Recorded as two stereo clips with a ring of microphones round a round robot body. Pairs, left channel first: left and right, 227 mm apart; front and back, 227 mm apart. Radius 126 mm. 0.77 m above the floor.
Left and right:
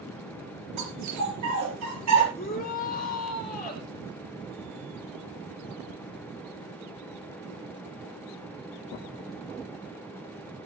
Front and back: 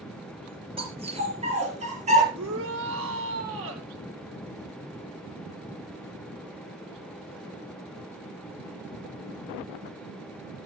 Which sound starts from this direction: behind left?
A shout, at 2.3 s.